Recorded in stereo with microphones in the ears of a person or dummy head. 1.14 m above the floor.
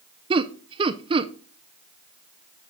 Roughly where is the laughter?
Right.